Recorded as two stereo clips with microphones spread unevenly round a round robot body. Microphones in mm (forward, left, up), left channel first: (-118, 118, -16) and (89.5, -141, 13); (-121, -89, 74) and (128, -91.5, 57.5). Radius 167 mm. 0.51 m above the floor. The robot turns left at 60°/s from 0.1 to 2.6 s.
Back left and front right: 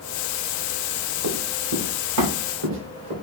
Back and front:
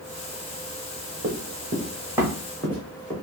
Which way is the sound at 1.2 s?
50° right.